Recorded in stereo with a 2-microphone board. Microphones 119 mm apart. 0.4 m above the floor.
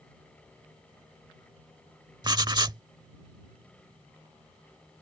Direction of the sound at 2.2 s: 35° right (ahead or behind).